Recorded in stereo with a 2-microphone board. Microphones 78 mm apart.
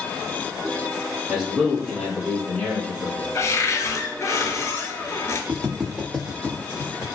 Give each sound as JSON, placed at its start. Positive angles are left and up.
{"t": 1.3, "sound": "a man speaking", "side_deg": -10, "distance_m": 1.2}
{"t": 3.4, "sound": "a cupboard door", "side_deg": 45, "distance_m": 0.5}
{"t": 5.5, "sound": "footsteps", "side_deg": -20, "distance_m": 0.8}